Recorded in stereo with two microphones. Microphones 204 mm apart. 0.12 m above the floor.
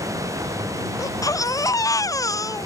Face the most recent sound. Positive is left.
turn(degrees=15)  # may be behind; listen again after turning